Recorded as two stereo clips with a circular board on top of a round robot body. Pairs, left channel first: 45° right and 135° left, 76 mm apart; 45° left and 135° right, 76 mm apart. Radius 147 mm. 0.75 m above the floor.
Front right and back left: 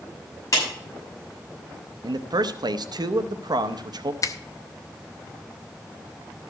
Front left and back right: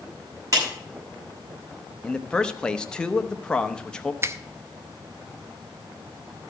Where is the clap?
95° right, 6.5 m.